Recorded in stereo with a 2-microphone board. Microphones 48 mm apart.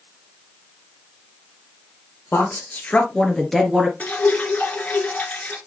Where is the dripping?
35° left (ahead or behind), 1.6 m.